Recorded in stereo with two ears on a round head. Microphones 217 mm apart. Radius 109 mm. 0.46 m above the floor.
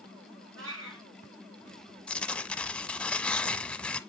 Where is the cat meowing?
55° right (ahead or behind), 3 m.